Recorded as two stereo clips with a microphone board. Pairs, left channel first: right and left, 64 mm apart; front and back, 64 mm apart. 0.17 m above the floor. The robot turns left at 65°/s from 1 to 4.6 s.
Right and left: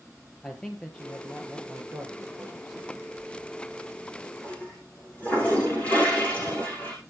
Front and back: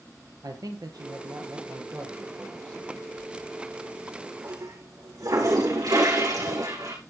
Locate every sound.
0.4 s a man speaking: 170° right, 3 m; by 3.1 s 55° left, 3 m
3.2 s a toilet flushing: 65° right, 8 m; by 7.0 s 160° right, 8 m